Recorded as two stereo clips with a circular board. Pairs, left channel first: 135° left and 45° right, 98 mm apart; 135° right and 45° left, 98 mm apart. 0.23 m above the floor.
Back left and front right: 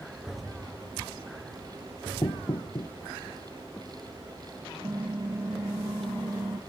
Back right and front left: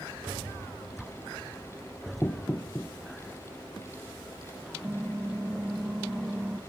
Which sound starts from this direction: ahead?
Typing on a keyboard, at 4.8 s.